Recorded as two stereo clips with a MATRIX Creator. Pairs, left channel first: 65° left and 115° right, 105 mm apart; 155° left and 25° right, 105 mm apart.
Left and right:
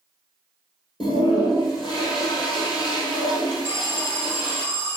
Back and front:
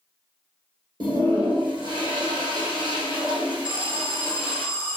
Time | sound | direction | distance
1.0 | a toilet flushing | 20° left | 1.5 m
3.6 | an alarm | 150° right | 1.3 m